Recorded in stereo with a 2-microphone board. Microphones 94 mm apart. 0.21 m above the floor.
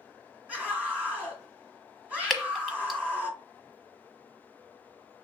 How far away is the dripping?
About 1.1 m.